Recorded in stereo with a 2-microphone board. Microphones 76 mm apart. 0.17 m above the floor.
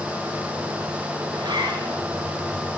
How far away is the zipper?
About 9.5 m.